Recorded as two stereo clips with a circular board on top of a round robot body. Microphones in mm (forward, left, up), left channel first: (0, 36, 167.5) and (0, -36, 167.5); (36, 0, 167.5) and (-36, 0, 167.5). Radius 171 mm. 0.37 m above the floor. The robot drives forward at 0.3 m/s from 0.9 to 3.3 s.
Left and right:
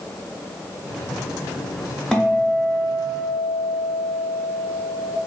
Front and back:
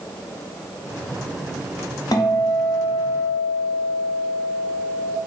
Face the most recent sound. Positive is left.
turn(degrees=20)